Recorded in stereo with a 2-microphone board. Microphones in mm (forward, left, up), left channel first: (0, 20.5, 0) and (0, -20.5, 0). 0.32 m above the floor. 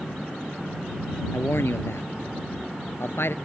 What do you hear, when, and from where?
1.3 s a man speaking: 80° left; by 3.4 s 70° left (ahead or behind)